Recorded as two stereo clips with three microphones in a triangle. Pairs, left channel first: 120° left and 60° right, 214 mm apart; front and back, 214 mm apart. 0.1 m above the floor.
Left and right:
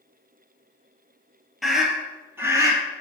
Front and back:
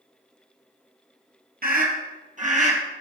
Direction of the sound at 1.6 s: 150° right.